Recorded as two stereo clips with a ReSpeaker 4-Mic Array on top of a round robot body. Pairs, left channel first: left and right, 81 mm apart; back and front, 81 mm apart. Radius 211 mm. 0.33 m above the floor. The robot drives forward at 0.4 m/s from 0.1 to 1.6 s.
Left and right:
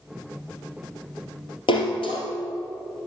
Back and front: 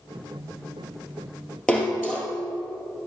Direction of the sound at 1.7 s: 105° left.